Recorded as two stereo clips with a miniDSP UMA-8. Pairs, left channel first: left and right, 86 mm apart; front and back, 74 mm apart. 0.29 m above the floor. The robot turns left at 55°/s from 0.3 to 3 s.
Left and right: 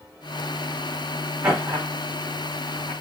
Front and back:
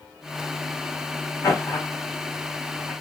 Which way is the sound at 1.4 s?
35° right.